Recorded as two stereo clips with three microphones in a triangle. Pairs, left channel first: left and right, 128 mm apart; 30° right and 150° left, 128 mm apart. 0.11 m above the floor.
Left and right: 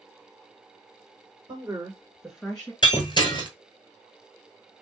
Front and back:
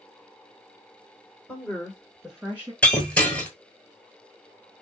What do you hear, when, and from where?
1.5 s a woman speaking: 95° right, 1.7 m; by 2.7 s 130° left, 1.4 m
2.8 s breaking glass: 45° left, 1.1 m